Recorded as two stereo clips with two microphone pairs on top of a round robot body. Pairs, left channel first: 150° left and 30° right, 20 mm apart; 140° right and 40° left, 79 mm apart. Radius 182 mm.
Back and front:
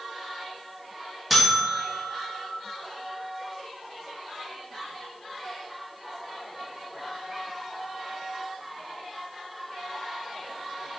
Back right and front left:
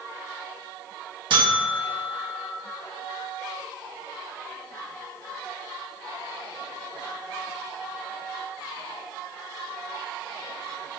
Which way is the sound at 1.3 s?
50° left.